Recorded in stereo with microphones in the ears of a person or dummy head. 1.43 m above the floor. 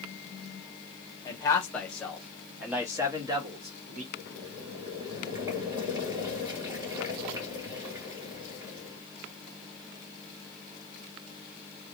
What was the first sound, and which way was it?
A man speaking, 25° left (ahead or behind).